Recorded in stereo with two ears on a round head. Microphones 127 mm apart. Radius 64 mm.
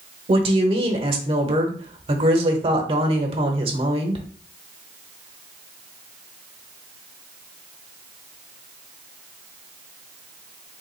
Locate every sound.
0.3 s a woman speaking: 40° right (ahead or behind), 1.1 m